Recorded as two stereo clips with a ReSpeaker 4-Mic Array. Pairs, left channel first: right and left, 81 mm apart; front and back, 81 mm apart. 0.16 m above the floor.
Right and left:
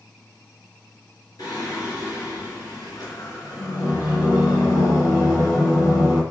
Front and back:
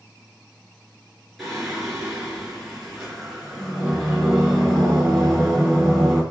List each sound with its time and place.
1.4 s singing: 85° right, 2 m